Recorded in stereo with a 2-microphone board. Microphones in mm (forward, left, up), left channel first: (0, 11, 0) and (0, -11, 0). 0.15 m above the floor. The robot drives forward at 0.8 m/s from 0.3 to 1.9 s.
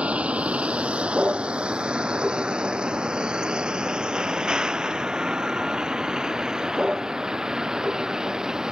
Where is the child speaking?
No child speaking in this recording.